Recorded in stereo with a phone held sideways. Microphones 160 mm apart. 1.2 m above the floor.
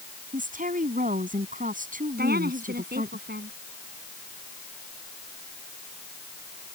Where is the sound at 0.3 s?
60° right (ahead or behind).